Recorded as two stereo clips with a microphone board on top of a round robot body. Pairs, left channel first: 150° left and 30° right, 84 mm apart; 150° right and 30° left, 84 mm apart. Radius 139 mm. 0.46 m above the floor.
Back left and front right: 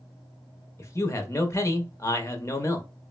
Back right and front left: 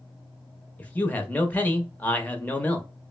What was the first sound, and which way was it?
A man speaking, 155° left.